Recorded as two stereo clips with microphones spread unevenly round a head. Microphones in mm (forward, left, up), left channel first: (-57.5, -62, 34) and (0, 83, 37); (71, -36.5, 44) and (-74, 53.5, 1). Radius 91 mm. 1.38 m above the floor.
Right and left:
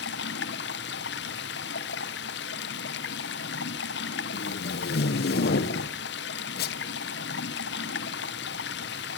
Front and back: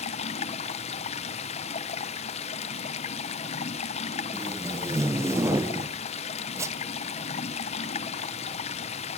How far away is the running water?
About 0.7 m.